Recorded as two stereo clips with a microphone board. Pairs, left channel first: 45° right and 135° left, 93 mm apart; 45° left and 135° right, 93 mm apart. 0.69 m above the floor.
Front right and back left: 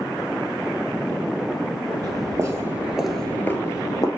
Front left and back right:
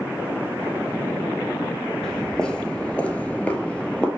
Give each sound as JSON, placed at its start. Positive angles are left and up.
{"t": 2.0, "sound": "footsteps", "azimuth_deg": 125, "distance_m": 1.0}